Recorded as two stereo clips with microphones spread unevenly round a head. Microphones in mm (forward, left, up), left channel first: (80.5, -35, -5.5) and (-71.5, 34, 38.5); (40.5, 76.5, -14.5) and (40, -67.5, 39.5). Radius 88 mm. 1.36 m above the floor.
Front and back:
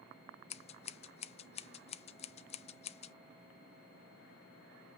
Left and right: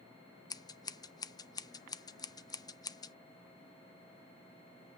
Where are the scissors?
30° left, 0.6 m.